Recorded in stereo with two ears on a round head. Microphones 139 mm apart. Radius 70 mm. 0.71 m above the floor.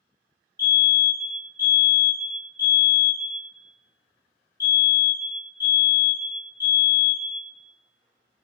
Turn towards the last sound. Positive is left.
turn(degrees=15)  # may be behind; listen again after turning